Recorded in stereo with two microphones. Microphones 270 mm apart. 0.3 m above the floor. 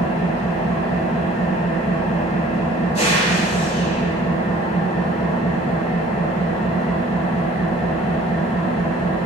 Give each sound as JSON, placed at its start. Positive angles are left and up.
{"t": 0.0, "sound": "an engine running", "side_deg": 25, "distance_m": 0.9}